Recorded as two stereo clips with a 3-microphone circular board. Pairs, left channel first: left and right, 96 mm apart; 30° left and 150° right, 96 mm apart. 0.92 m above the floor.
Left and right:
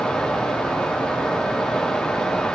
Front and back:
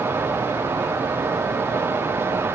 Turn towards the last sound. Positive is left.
No sound to turn to.